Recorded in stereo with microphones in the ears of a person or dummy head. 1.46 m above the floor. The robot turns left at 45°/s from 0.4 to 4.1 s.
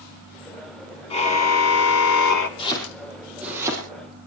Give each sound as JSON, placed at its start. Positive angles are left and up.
{"t": 1.1, "sound": "a car horn", "azimuth_deg": 150, "distance_m": 2.0}
{"t": 2.6, "sound": "chopping", "side_deg": 35, "distance_m": 6.5}